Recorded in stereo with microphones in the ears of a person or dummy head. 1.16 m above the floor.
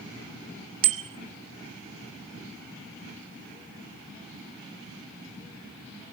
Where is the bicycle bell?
75° right (ahead or behind), 2 m.